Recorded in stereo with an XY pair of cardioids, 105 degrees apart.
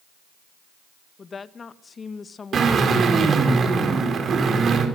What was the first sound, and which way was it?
A woman speaking, 35° left.